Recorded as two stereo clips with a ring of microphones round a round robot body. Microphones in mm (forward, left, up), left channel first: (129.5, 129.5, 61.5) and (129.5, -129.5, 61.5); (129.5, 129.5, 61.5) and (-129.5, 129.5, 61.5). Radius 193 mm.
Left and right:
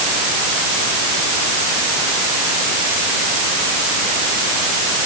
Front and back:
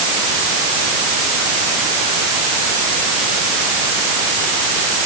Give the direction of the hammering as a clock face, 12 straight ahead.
No hammering in this recording.